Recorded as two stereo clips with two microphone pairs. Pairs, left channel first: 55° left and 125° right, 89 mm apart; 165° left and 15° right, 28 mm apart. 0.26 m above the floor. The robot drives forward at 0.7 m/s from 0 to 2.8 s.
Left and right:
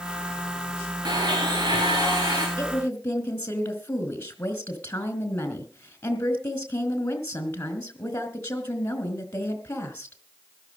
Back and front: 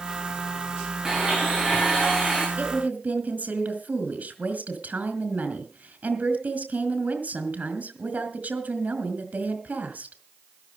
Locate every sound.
1.1 s a blender: 80° right, 7 m; by 2.5 s 90° right, 6.5 m
2.6 s a woman speaking: 10° right, 3.5 m